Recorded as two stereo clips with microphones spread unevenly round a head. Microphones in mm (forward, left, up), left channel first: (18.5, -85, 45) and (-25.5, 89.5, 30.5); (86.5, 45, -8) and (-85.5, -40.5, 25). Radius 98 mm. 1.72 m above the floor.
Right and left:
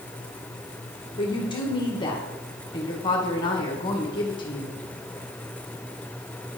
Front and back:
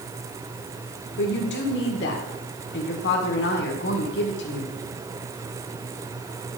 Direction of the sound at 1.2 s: 10° right.